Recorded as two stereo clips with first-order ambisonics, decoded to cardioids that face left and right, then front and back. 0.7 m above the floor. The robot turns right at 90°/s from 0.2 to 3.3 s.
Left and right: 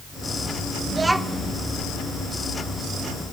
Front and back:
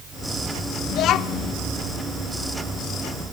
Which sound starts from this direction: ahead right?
A child speaking, at 0.9 s.